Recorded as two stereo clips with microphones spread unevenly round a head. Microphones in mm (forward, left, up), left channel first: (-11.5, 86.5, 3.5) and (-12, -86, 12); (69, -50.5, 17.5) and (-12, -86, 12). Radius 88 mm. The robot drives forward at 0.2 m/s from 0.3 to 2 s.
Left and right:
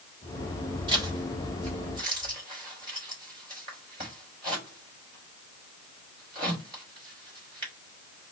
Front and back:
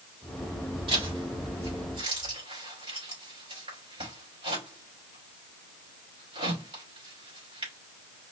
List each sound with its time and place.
0.9 s a zipper: 150° right, 3.5 m; by 7.7 s 155° right, 4 m